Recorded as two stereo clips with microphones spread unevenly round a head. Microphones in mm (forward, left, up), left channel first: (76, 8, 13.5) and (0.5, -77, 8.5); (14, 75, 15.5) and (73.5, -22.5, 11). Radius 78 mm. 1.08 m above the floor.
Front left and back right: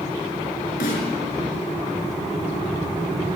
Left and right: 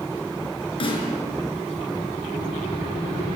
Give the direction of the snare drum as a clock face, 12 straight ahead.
9 o'clock.